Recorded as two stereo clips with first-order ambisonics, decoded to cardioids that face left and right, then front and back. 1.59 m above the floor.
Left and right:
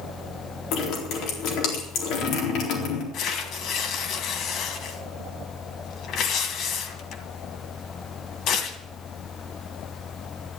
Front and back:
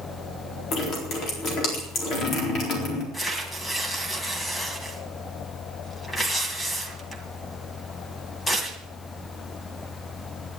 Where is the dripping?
55° left, 4 m.